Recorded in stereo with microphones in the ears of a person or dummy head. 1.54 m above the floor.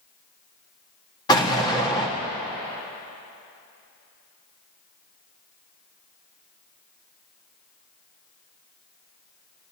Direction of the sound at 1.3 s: 20° left (ahead or behind).